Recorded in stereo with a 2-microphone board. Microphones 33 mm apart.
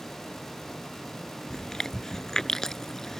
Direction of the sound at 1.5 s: 15° left (ahead or behind).